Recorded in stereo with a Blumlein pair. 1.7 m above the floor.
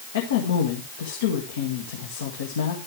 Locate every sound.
0.1 s a woman speaking: 60° left, 1.7 m